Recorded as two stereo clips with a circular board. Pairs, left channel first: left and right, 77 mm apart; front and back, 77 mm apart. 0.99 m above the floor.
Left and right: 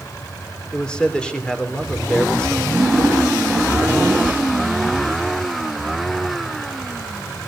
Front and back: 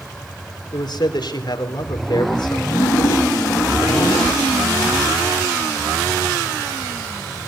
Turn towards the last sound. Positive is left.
turn(degrees=-20)